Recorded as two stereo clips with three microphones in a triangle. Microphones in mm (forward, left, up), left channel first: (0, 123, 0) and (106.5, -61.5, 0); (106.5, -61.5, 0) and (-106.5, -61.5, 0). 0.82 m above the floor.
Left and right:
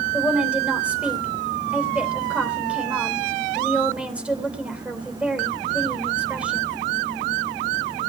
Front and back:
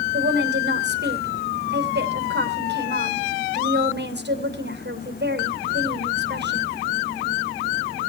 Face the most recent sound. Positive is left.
turn(degrees=-145)